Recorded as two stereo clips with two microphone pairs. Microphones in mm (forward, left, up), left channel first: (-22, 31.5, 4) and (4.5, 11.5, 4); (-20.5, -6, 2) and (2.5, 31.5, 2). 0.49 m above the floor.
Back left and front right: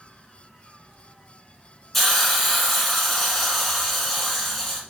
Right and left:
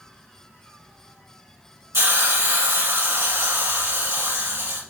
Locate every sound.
1.9 s a hiss: 55° left, 1.1 m